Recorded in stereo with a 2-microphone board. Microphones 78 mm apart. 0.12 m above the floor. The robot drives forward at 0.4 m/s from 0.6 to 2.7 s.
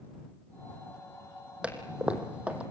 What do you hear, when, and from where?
1.6 s a toilet flushing: 15° right (ahead or behind), 3 m